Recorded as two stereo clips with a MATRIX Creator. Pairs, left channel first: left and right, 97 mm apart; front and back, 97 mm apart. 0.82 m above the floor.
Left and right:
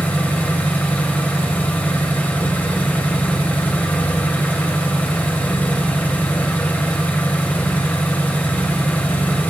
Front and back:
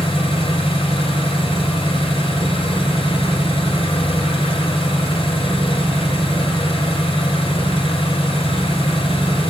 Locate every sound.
0.0 s an engine running: 15° left, 2.5 m